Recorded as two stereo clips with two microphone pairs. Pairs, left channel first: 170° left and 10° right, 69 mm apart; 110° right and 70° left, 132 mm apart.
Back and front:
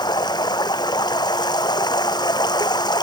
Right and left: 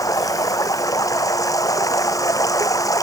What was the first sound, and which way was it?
Running water, 175° right.